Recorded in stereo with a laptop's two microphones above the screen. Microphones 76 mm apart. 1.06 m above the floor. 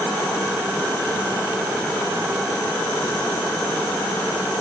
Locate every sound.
Only background noise.